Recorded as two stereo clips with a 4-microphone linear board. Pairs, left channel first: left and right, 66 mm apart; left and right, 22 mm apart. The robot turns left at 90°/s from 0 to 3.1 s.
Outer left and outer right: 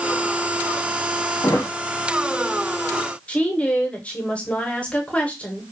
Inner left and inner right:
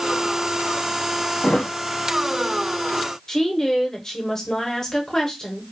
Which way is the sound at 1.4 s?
70° left (ahead or behind).